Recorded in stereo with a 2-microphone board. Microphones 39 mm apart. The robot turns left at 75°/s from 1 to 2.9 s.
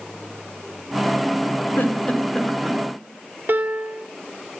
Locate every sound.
1.8 s a giggle: 65° left (ahead or behind), 4.5 m; by 2.8 s 15° right (ahead or behind), 4.5 m
3.5 s a piano: 60° right (ahead or behind), 2.5 m